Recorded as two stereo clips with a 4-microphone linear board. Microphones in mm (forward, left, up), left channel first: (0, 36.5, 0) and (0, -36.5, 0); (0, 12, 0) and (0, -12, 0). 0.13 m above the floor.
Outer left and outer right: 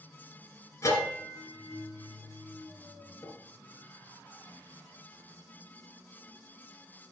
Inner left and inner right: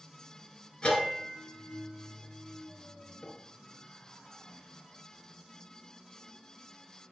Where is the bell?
45° left (ahead or behind), 2 m.